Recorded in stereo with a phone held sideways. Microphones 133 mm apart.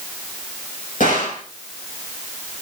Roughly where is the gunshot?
Left.